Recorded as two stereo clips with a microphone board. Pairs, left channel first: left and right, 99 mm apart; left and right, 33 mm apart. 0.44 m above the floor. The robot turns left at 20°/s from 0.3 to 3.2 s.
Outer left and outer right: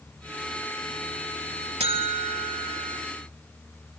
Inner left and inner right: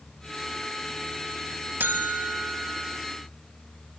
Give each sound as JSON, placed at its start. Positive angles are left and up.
{"t": 1.8, "sound": "a buzzer", "side_deg": -80, "distance_m": 1.1}